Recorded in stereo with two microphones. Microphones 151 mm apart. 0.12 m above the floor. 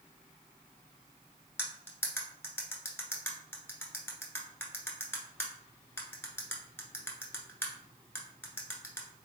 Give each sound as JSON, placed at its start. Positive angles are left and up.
{"t": 1.6, "sound": "cutlery clinking", "side_deg": 15, "distance_m": 1.1}